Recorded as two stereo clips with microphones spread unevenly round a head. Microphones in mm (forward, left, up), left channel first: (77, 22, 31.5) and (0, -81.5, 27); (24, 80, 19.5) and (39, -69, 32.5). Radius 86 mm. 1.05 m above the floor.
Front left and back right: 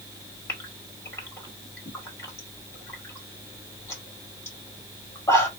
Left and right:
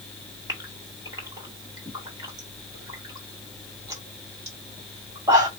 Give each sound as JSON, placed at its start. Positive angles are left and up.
{"t": 0.5, "sound": "a gasp", "azimuth_deg": -15, "distance_m": 2.0}